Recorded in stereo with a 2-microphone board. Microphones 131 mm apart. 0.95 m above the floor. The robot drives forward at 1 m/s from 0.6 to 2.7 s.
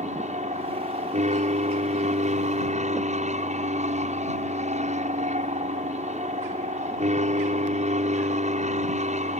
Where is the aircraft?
60° right (ahead or behind).